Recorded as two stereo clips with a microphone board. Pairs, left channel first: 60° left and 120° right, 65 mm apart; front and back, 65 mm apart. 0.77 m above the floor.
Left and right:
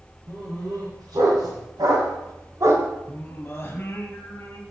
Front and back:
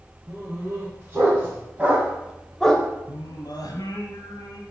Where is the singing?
5° left, 1.3 m.